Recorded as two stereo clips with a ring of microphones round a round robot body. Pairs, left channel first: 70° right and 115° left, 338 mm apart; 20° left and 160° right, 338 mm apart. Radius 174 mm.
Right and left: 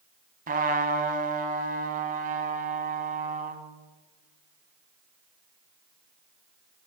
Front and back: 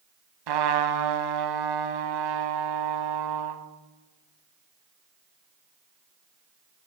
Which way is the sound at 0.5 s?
Straight behind.